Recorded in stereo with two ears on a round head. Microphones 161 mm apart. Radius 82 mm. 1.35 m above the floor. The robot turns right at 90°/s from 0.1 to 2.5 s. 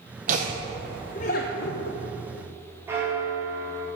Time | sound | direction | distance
0.3 | laughter | 45° right (ahead or behind) | 0.7 m
2.9 | a bell | 15° right (ahead or behind) | 1.7 m